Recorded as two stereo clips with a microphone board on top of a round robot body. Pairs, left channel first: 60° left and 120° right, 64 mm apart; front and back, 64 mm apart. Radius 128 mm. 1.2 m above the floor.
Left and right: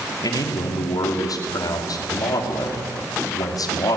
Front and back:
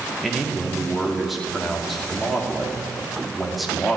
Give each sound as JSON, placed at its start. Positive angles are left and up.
{"t": 0.2, "sound": "a man speaking", "azimuth_deg": 90, "distance_m": 3.0}